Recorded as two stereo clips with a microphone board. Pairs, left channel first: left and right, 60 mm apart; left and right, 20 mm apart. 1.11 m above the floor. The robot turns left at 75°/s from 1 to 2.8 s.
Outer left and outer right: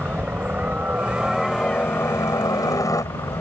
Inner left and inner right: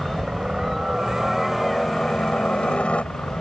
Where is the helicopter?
150° right; by 3.4 s 75° left.